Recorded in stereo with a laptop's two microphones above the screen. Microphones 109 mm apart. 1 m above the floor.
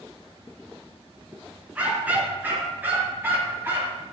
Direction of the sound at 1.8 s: 10° right (ahead or behind).